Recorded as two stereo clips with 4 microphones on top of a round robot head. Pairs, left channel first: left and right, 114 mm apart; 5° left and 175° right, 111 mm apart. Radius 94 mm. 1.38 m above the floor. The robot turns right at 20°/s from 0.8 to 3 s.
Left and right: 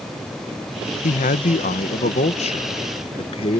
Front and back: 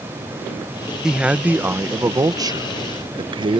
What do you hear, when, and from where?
1.0 s a man speaking: 100° left; by 3.6 s 140° left